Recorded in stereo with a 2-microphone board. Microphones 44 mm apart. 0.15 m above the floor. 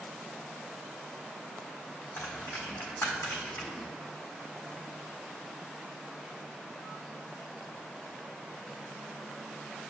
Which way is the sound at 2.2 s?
65° left (ahead or behind).